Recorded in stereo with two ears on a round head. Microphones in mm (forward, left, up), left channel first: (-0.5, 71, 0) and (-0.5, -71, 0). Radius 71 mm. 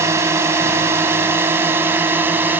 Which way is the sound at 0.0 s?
15° right (ahead or behind).